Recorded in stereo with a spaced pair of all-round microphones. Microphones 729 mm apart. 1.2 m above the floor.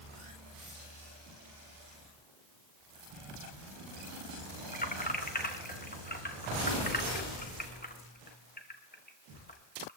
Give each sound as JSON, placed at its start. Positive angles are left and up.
{"t": 4.7, "sound": "keys jangling", "side_deg": 15, "distance_m": 0.9}